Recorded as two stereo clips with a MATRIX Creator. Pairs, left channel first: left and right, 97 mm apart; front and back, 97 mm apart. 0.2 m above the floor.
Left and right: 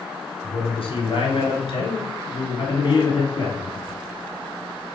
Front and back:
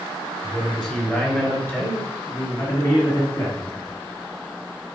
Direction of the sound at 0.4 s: 85° left.